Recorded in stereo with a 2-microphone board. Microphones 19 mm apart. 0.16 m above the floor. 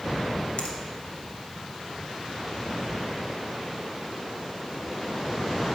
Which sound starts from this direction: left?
A finger snap, at 0.6 s.